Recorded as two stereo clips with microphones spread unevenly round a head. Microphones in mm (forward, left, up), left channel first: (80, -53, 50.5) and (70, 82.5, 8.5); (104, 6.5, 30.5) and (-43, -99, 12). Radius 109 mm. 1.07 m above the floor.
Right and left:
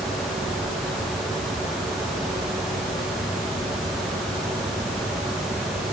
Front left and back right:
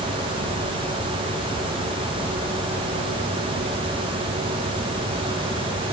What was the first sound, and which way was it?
Only background noise.